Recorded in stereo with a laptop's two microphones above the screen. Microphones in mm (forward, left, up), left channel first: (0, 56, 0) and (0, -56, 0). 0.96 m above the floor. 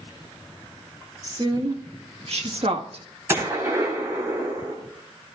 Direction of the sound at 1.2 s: 35° right (ahead or behind).